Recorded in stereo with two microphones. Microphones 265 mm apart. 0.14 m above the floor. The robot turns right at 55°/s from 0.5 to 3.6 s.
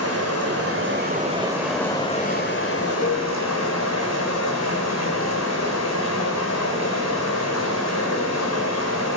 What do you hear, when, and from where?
0.0 s running water: 65° right, 1.4 m; by 9.2 s 105° left, 1.4 m
3.0 s a cowbell: 25° left (ahead or behind), 0.6 m; by 3.3 s 40° left (ahead or behind), 0.6 m